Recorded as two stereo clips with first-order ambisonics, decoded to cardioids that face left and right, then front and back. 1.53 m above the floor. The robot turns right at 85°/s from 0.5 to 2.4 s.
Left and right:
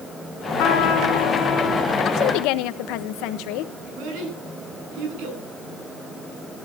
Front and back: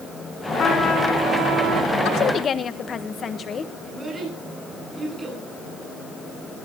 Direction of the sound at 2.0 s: 35° left.